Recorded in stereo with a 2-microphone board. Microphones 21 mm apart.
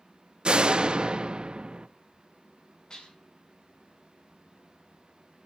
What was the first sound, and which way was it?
A door slam, 50° right (ahead or behind).